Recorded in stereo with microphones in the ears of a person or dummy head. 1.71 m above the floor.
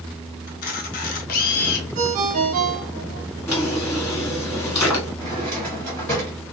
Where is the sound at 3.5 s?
15° left (ahead or behind), 1.7 m.